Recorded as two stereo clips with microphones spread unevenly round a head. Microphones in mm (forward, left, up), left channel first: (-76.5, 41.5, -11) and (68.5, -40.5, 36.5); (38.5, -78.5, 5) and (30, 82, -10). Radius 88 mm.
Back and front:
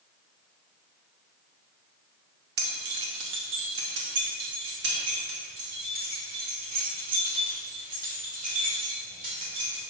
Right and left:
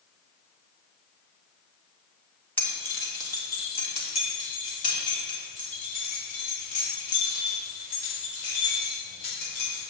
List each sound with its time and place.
2.6 s keys jangling: 10° right, 2.0 m; by 9.8 s 75° right, 6 m